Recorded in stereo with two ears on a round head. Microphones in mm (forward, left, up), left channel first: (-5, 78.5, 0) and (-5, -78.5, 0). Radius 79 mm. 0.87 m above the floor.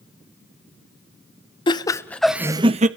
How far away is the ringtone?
I don't hear a ringtone.